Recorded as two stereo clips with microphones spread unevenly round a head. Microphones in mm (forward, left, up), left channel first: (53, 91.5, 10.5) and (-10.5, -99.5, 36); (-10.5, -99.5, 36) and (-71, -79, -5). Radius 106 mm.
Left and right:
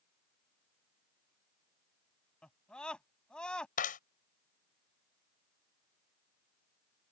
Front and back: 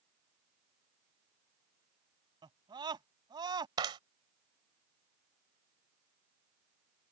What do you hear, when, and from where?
2.4 s a scream: 160° left
3.8 s a clap: 125° left